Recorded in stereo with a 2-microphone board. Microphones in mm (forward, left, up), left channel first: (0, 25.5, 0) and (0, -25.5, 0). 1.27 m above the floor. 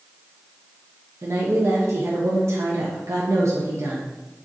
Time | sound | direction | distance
1.2 | a woman speaking | 65° right (ahead or behind) | 0.5 m